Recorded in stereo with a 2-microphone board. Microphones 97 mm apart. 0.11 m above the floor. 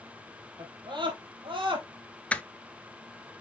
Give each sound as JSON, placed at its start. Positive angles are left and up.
{"t": 0.6, "sound": "a scream", "side_deg": -50, "distance_m": 3.5}
{"t": 2.3, "sound": "crushing", "side_deg": 15, "distance_m": 0.7}